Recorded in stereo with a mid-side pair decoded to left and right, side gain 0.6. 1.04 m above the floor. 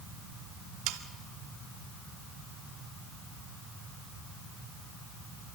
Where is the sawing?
70° right, 1.5 m.